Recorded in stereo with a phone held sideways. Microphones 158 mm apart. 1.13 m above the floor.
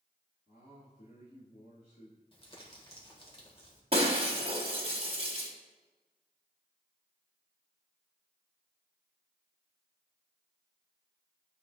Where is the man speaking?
65° left (ahead or behind), 1.9 m.